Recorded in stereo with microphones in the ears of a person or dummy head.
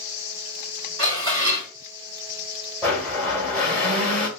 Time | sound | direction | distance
1.0 | dishes clattering | 65° right (ahead or behind) | 1.9 m
2.8 | a blender | 5° left (ahead or behind) | 1.2 m